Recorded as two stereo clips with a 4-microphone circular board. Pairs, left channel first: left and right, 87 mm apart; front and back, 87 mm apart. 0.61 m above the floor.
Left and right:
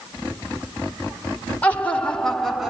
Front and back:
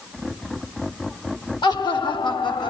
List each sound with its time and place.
1.6 s laughter: 20° left, 2.0 m; by 2.7 s 5° right, 1.5 m